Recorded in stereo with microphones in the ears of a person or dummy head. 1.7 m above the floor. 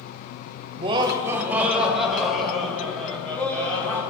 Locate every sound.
0.8 s laughter: 35° right (ahead or behind), 0.8 m; by 4.0 s 10° left (ahead or behind), 3 m